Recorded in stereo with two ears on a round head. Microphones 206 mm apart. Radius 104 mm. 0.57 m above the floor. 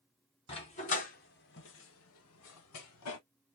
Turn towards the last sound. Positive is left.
turn(degrees=65)  # may be behind; listen again after turning